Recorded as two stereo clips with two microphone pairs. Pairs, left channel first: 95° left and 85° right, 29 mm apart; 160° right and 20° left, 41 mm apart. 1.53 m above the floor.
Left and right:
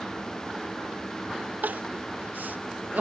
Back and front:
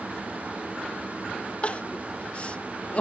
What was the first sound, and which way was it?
Crying, 100° right.